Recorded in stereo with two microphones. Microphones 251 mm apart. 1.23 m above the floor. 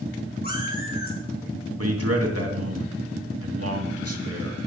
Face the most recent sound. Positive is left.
turn(degrees=-70)  # may be behind; listen again after turning